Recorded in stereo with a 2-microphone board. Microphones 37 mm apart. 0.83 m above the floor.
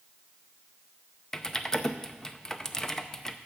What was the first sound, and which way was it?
Typing on a keyboard, 15° left (ahead or behind).